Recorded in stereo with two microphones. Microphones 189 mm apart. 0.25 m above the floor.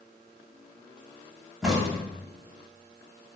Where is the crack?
Centre (ahead or behind), 0.8 m.